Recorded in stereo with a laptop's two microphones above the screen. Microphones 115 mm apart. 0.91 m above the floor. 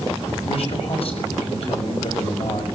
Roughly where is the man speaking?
Left.